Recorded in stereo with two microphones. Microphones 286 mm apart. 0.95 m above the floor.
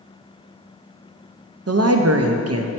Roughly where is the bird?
No bird in this recording.